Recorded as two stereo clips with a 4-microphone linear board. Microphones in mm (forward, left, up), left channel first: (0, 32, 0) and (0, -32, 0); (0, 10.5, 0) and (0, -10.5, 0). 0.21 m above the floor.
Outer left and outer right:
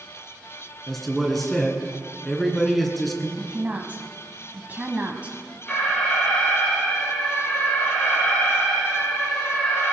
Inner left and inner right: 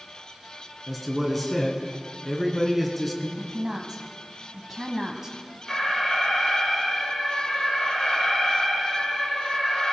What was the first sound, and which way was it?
A man speaking, centre (ahead or behind).